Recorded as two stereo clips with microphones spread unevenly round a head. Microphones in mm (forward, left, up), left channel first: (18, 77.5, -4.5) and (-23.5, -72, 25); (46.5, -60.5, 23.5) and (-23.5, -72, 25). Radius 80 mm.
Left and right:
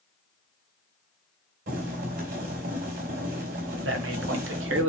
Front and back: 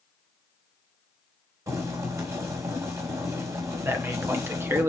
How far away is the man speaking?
About 1.5 m.